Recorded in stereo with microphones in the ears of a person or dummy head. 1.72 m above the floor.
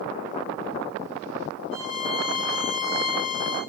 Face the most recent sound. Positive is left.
turn(degrees=-60)  # may be behind; listen again after turning